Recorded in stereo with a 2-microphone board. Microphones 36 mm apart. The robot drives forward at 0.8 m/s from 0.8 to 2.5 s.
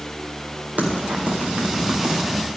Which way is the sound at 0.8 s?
45° right (ahead or behind).